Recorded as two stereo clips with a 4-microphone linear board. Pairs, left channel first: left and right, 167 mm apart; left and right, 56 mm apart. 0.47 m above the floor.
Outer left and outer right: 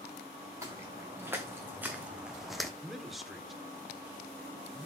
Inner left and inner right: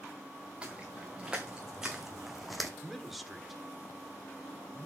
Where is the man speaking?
Centre (ahead or behind), 1.5 m.